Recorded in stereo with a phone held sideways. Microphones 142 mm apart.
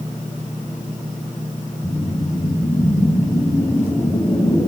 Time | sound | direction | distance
1.8 | a whoosh | 20° left (ahead or behind) | 1.9 m